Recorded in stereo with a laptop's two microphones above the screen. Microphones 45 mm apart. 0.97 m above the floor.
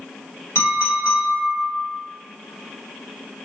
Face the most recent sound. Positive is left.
turn(degrees=70)  # may be behind; listen again after turning